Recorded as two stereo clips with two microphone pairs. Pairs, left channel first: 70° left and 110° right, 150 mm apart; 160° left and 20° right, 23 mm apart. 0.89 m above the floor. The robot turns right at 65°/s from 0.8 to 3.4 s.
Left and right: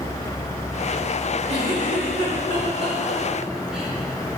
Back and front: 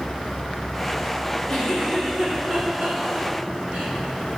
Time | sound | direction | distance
1.5 | a giggle | 150° right | 2.5 m